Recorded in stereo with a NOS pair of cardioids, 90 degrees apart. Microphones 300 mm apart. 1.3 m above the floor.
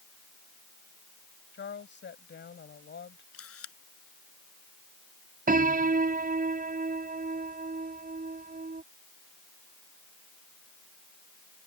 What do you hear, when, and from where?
1.5 s a woman speaking: 35° left
3.3 s a camera shutter: 50° left
5.5 s a piano: 30° right